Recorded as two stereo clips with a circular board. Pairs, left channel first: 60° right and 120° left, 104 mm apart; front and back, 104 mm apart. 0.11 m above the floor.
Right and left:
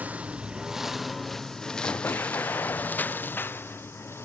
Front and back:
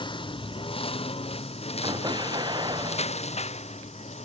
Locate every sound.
0.0 s a lawn mower: 45° left; by 4.2 s 5° left
1.8 s an explosion: 130° right